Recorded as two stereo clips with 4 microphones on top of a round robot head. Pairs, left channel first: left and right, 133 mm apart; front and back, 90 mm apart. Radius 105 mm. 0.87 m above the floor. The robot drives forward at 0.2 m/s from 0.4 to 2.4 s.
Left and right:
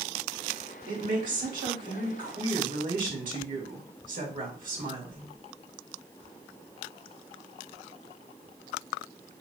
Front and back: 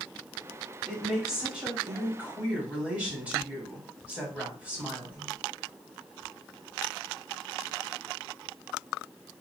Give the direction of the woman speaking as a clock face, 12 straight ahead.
3 o'clock.